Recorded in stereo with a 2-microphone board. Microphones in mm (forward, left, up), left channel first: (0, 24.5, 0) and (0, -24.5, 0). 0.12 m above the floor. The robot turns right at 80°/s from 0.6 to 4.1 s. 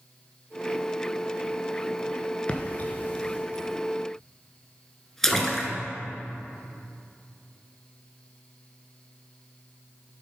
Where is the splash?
25° left (ahead or behind), 0.9 m; by 5.7 s 5° left (ahead or behind), 0.9 m.